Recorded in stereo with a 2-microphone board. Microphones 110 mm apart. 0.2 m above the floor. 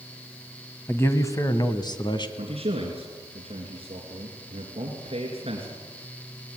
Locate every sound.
0.9 s a man speaking: 20° left (ahead or behind), 1.3 m; by 2.3 s 40° left (ahead or behind), 1.7 m
2.4 s a man speaking: 60° right (ahead or behind), 3 m